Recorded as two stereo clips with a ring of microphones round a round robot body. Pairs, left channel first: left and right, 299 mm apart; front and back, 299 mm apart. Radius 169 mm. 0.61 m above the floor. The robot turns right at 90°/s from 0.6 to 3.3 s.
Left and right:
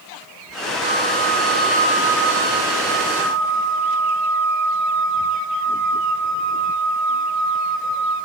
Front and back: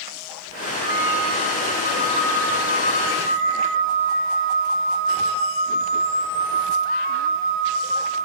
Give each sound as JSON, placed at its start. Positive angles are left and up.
{"t": 0.8, "sound": "a flute", "azimuth_deg": -130, "distance_m": 4.5}